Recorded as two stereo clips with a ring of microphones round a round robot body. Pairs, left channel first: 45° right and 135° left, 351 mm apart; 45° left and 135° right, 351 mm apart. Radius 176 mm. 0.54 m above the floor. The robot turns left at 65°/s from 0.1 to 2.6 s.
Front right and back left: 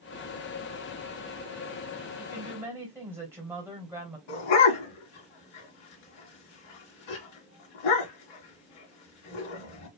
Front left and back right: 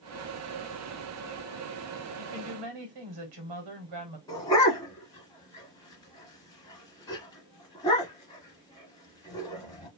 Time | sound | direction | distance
2.2 | a woman speaking | 115° right | 2.5 m
4.3 | a dog barking | 35° right | 2 m